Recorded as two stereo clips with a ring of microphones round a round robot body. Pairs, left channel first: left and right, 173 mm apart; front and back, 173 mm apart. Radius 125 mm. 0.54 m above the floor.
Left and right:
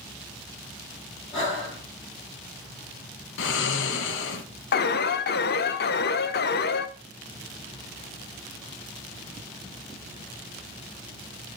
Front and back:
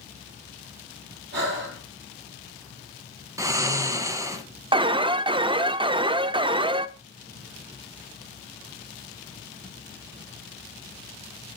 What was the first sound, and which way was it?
Breathing, 160° left.